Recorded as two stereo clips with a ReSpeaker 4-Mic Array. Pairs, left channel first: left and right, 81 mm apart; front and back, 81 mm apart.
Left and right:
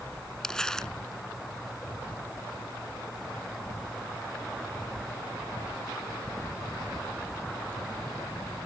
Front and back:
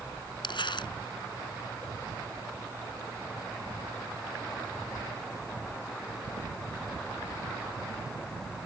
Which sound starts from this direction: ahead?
Crumpling, at 0.4 s.